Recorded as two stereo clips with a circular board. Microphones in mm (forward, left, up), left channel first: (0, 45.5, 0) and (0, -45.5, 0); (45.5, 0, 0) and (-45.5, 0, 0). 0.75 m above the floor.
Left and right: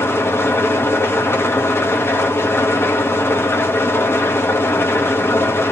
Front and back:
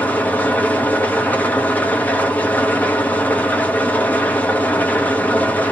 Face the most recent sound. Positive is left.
turn(degrees=55)